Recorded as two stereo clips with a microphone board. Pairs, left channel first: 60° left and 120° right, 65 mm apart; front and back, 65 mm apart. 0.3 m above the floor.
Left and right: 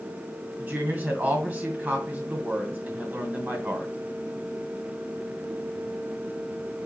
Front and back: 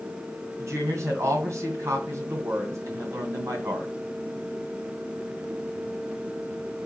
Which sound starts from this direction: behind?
A woman speaking, at 0.6 s.